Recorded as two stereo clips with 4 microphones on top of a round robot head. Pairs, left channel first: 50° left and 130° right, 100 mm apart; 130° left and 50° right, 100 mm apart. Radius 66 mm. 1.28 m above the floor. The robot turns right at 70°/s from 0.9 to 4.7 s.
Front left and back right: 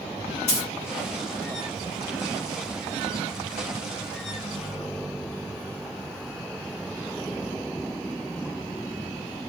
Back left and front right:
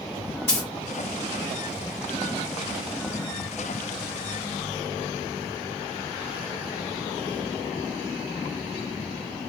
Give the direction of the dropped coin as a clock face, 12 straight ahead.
10 o'clock.